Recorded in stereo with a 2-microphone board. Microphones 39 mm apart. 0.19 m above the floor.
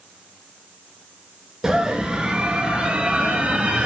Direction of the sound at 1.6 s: 20° right (ahead or behind).